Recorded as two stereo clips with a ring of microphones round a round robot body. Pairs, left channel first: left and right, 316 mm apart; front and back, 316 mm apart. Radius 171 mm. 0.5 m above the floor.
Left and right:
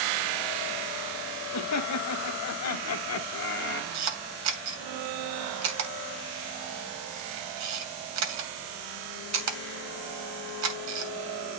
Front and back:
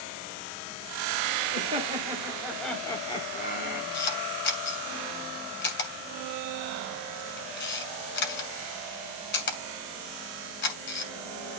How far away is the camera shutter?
About 2.5 m.